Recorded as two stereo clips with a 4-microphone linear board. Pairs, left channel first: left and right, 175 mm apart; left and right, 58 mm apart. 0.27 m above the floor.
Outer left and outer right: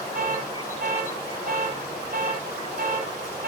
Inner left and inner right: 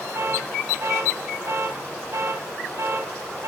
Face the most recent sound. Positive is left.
turn(degrees=-50)  # may be behind; listen again after turning